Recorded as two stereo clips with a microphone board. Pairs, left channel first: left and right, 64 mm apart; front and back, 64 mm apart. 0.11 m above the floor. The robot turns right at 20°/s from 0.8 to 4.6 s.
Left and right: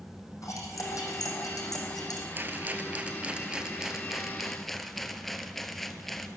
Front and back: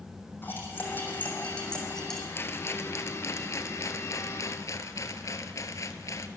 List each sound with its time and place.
0.4 s cutlery clinking: 60° left, 3.5 m; by 2.2 s 85° left, 3.5 m
2.4 s a rattle: 40° right, 0.9 m; by 6.3 s 5° left, 0.9 m